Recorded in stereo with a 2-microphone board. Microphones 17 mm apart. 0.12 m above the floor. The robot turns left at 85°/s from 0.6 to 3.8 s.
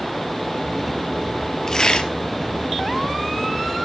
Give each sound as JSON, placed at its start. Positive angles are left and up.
{"t": 1.7, "sound": "tearing paper", "azimuth_deg": 145, "distance_m": 1.5}